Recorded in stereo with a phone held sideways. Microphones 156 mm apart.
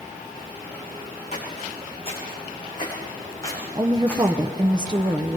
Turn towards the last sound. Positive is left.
turn(degrees=-25)  # may be behind; listen again after turning